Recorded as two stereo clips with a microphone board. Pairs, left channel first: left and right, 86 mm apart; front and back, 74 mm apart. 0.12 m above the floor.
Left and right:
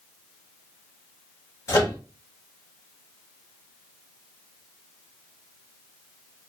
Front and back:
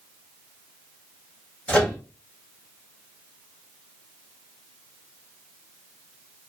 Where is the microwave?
65° left, 1.9 m.